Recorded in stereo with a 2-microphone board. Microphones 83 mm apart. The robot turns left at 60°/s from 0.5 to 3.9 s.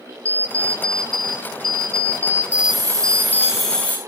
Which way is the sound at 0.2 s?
40° right.